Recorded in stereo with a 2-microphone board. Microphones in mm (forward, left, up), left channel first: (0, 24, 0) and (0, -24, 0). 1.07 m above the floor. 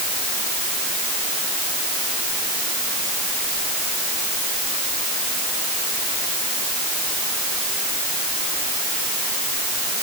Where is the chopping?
No chopping in this recording.